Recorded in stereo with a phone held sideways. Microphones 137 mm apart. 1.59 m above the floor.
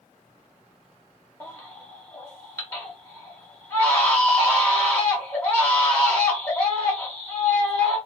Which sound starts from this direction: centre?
A baby crying, at 1.4 s.